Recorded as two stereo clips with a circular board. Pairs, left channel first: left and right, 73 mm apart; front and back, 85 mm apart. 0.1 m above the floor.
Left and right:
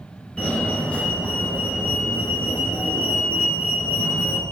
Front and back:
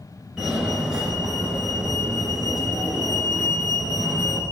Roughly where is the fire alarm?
Behind left.